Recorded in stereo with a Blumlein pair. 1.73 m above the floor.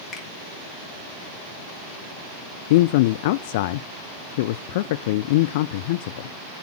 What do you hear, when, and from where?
0.1 s a finger snap: 15° left, 3.5 m
2.7 s a man speaking: 50° left, 0.5 m